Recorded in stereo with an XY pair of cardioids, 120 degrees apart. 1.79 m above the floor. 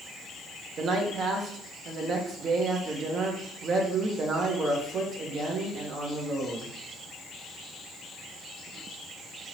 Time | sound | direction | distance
0.8 | a man speaking | 50° right | 1.2 m